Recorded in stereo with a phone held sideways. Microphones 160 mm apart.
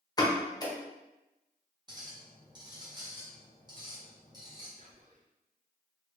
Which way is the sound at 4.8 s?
55° right (ahead or behind).